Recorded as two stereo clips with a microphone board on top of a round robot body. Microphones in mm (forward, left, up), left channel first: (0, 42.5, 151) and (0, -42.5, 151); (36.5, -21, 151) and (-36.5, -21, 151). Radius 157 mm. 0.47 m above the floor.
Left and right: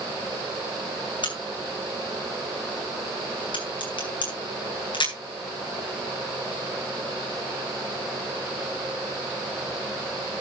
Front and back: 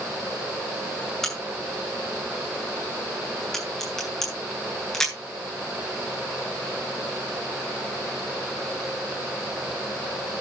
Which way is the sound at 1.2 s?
85° left.